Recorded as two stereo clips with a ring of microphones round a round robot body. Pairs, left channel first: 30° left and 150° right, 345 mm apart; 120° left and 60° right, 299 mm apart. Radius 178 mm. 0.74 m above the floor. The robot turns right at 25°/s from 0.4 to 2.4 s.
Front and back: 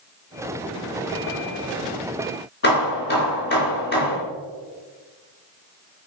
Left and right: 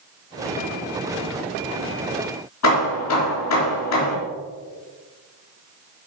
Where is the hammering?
90° left, 4 m.